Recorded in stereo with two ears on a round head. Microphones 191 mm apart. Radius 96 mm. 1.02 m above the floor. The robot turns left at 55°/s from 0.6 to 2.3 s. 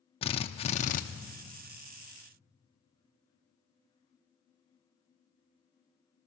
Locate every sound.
0.2 s a drill: 30° left (ahead or behind), 0.6 m; by 1.0 s 40° left (ahead or behind), 0.6 m